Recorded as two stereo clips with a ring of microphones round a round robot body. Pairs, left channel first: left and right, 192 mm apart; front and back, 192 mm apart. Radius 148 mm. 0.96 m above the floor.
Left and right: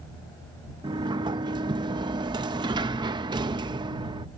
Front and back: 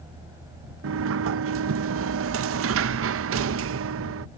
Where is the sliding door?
165° right.